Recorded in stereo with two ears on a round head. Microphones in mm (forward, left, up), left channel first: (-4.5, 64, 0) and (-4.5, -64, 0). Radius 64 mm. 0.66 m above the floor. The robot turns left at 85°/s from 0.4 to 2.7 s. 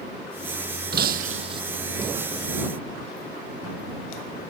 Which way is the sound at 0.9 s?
85° right.